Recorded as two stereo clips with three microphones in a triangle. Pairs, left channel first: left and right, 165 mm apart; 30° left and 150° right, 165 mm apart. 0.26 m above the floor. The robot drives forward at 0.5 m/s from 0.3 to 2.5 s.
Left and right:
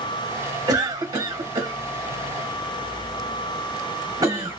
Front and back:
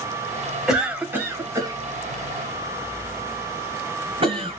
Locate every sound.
0.7 s a cough: 65° right, 1.3 m; by 4.6 s 140° right, 1.4 m